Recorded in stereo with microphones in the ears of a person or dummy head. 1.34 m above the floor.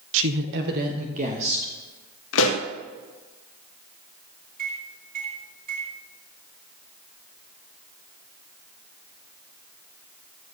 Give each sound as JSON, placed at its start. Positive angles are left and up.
{"t": 0.1, "sound": "a woman speaking", "side_deg": -75, "distance_m": 0.7}
{"t": 2.3, "sound": "a pop", "side_deg": 75, "distance_m": 1.5}
{"t": 4.6, "sound": "a microwave", "side_deg": -50, "distance_m": 2.5}